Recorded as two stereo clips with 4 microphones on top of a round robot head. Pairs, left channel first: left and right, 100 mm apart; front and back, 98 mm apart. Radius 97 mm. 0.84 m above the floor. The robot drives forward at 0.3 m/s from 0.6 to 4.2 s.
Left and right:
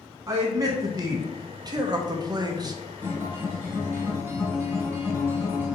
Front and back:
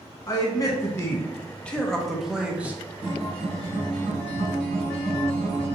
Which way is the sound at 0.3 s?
45° right.